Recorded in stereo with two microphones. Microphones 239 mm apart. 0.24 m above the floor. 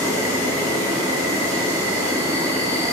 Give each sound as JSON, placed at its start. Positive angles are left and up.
{"t": 0.0, "sound": "an insect", "side_deg": -10, "distance_m": 1.1}